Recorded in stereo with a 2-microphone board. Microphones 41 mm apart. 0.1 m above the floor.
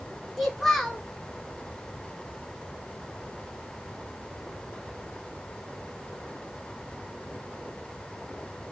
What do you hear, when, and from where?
0.4 s a child speaking: centre (ahead or behind), 0.7 m